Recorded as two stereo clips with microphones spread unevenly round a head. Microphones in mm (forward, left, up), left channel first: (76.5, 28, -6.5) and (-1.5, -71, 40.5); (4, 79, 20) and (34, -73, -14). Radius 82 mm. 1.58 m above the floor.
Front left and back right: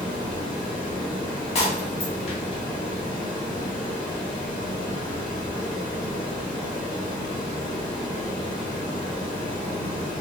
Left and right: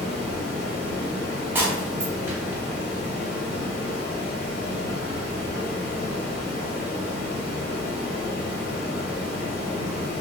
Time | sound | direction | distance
0.0 | running water | 100° left | 1.3 m
1.6 | breaking glass | 5° left | 0.9 m